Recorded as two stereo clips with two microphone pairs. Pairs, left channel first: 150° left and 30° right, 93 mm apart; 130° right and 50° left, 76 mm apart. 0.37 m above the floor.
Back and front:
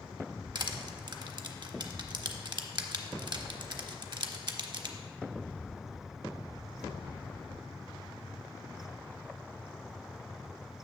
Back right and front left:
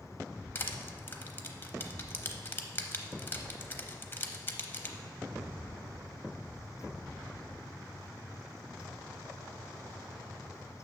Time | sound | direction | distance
0.6 | crushing | 65° right | 0.6 m